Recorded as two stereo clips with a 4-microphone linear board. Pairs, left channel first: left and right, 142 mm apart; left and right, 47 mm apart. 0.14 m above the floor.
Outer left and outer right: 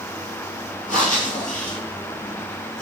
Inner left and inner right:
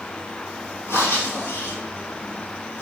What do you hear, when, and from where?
0.9 s breathing: 70° left (ahead or behind), 1.3 m